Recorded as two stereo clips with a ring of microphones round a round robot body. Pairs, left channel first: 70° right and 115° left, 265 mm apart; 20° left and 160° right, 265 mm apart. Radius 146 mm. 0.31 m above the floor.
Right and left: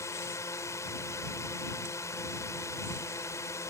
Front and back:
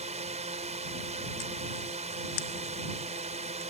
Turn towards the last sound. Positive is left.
turn(degrees=-135)